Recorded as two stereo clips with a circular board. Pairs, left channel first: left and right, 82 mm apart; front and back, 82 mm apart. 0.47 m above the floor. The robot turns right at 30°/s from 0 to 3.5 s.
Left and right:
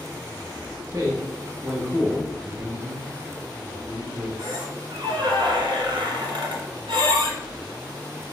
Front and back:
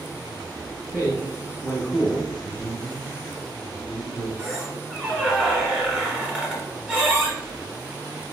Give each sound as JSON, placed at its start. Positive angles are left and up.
{"t": 0.9, "sound": "a man speaking", "azimuth_deg": -60, "distance_m": 0.9}
{"t": 2.4, "sound": "a man speaking", "azimuth_deg": -95, "distance_m": 1.2}
{"t": 4.4, "sound": "a squeak", "azimuth_deg": -100, "distance_m": 1.2}